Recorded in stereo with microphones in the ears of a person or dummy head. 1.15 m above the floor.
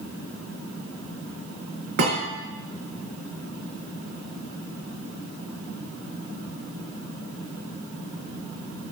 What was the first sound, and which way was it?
A thud, 65° right (ahead or behind).